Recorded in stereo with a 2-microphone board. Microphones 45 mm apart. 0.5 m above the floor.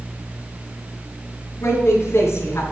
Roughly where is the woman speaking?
Left.